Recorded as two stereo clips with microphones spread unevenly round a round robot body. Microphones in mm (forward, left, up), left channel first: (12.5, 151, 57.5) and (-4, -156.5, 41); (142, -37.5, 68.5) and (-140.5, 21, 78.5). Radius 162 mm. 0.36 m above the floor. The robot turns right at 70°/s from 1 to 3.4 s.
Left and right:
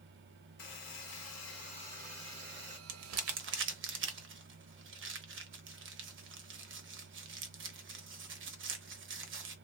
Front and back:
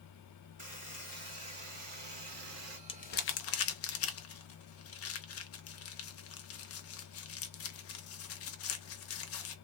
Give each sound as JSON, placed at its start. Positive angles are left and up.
{"t": 0.6, "sound": "a buzzer", "azimuth_deg": 105, "distance_m": 2.0}
{"t": 2.9, "sound": "crumpling", "azimuth_deg": -80, "distance_m": 0.8}